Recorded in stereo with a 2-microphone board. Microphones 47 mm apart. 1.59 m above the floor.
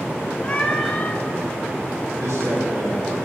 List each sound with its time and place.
0.4 s a cat meowing: 25° left (ahead or behind), 0.9 m
2.2 s a man speaking: 80° right, 3.5 m